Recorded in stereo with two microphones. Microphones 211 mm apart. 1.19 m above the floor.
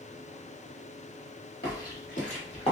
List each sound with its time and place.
1.6 s footsteps: 45° left (ahead or behind), 1.7 m; by 2.7 s 25° left (ahead or behind), 1.4 m